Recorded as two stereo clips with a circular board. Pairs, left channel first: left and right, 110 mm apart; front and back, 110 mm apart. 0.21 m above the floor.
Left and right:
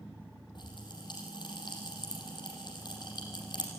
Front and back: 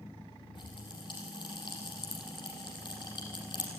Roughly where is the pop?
Ahead left.